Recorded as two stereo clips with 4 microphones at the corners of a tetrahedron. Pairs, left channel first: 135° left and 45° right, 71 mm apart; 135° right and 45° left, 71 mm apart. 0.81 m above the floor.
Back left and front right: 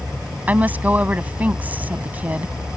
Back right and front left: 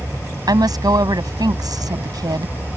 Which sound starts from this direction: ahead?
A woman speaking, at 0.5 s.